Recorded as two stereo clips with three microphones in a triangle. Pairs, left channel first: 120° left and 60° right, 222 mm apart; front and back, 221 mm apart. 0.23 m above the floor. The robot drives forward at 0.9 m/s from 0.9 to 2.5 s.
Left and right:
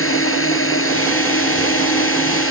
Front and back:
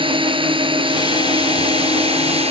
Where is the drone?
115° left; by 2.5 s 120° left.